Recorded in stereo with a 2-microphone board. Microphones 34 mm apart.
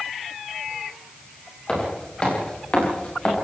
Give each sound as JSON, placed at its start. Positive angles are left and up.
{"t": 1.7, "sound": "footsteps", "side_deg": 30, "distance_m": 9.0}